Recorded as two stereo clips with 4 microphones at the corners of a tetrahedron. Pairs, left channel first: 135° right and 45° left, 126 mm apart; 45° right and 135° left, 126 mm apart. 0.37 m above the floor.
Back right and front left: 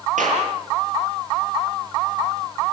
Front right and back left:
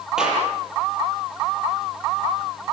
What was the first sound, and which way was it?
A clap, 50° left.